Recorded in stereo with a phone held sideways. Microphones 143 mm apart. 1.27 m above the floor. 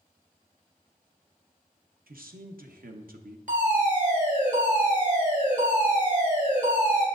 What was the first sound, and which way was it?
A man speaking, 80° right.